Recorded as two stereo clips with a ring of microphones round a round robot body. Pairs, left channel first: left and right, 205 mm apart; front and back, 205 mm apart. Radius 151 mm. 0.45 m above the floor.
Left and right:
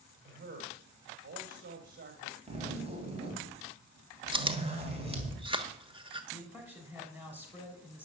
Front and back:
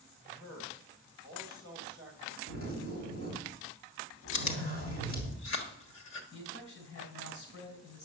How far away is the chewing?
About 1.4 m.